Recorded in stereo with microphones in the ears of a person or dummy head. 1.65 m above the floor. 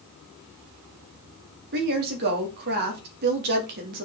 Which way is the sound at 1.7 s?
60° right (ahead or behind).